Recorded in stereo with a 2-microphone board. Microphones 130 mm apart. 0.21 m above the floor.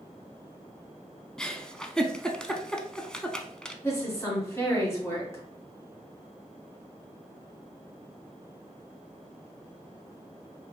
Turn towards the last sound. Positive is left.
turn(degrees=20)  # may be behind; listen again after turning